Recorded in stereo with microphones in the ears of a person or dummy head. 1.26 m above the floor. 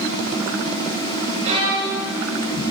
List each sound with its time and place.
1.4 s a violin: 35° right (ahead or behind), 6.5 m